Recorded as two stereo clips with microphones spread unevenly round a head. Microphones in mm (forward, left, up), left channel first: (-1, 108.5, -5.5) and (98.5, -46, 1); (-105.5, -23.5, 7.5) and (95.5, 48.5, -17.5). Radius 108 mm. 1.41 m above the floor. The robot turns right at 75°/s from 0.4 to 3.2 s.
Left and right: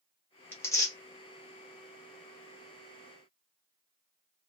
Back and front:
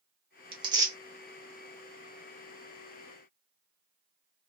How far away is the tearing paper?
About 1.1 m.